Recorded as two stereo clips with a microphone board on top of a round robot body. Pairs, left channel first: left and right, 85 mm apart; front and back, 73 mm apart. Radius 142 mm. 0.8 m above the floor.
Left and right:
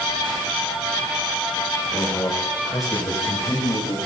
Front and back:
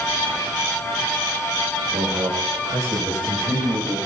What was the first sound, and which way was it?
A man speaking, 150° left.